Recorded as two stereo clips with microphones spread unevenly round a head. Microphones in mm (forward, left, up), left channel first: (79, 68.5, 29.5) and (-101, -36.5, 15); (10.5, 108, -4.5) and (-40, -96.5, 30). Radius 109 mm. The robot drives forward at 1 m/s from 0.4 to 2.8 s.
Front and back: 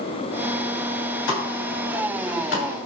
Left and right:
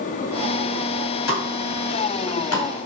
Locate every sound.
1.3 s a pop: 50° left, 5.5 m; by 2.9 s 65° left, 4.5 m